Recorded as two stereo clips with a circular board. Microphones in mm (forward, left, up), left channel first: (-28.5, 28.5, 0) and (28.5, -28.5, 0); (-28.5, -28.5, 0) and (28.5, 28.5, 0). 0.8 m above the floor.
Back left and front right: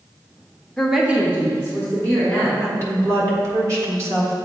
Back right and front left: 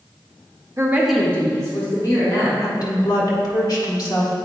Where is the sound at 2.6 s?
90° right, 1.6 m.